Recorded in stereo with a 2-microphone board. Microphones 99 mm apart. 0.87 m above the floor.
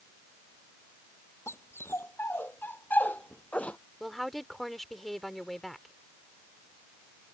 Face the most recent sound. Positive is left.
turn(degrees=0)  # may be behind; listen again after turning